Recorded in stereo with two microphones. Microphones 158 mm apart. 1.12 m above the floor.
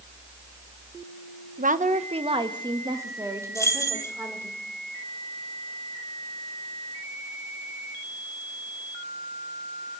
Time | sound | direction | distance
1.6 | a woman speaking | 60° right (ahead or behind) | 1.0 m
3.5 | keys jangling | 20° left (ahead or behind) | 1.9 m